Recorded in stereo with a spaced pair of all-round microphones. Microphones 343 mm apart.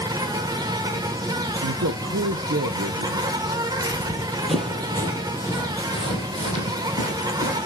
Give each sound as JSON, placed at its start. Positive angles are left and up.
{"t": 0.0, "sound": "an insect", "side_deg": -10, "distance_m": 1.1}
{"t": 1.6, "sound": "a man speaking", "side_deg": -45, "distance_m": 0.6}
{"t": 3.9, "sound": "running footsteps", "side_deg": -10, "distance_m": 1.5}